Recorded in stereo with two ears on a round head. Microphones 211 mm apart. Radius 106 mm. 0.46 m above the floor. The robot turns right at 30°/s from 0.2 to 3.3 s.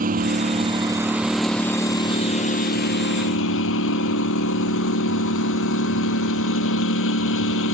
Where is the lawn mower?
35° right; by 7.7 s 55° left.